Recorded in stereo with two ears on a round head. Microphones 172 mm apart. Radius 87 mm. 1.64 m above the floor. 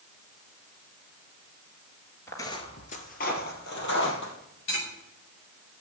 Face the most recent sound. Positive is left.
turn(degrees=65)  # may be behind; listen again after turning